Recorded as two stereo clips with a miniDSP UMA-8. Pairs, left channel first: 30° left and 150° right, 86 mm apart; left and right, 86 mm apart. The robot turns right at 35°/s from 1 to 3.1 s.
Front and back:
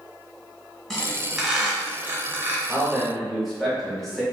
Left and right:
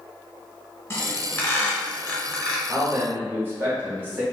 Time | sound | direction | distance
0.9 | a squeak | 110° left | 0.8 m
2.7 | a man speaking | 70° right | 0.9 m